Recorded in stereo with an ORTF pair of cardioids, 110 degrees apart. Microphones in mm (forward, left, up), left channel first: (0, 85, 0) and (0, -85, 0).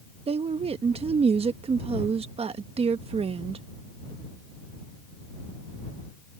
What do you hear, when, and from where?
0.3 s a woman speaking: 35° right